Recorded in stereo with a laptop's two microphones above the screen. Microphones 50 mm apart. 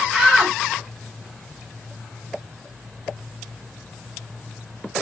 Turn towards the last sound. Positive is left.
turn(degrees=-5)  # may be behind; listen again after turning